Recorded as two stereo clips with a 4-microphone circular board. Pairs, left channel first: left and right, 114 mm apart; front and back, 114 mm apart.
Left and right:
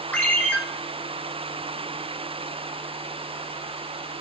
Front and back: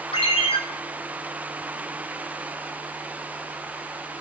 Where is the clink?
No clink in this recording.